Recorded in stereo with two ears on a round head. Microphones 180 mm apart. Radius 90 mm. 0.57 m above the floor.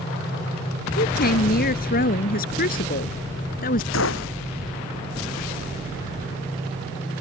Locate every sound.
1.0 s a woman speaking: 50° left (ahead or behind); by 3.8 s 45° left (ahead or behind)
3.9 s a gunshot: 75° left (ahead or behind)